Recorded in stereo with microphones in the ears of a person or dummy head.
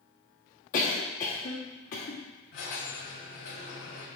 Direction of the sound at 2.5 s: 55° left (ahead or behind).